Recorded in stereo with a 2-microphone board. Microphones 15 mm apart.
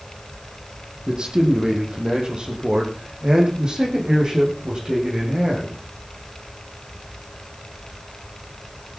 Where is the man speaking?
60° right (ahead or behind), 5.5 m; by 5.7 s 40° right (ahead or behind), 9.5 m.